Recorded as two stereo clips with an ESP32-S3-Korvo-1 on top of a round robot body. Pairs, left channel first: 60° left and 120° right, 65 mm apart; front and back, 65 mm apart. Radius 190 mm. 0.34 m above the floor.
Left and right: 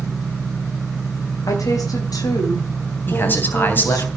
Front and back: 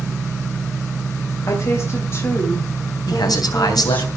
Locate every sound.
1.5 s a woman speaking: 35° left, 2.5 m; by 4.1 s 60° left, 4 m
3.1 s a man speaking: straight ahead, 3 m